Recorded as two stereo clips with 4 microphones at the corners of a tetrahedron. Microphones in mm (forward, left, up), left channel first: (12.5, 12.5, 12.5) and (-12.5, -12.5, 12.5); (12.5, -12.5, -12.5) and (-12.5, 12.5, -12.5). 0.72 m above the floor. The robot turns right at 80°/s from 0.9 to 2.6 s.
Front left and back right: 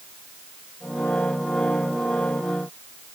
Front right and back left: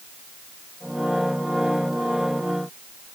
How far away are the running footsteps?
No running footsteps in this recording.